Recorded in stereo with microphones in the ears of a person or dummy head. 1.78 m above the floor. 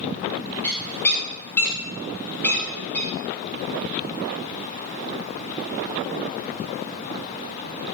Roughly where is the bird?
Centre.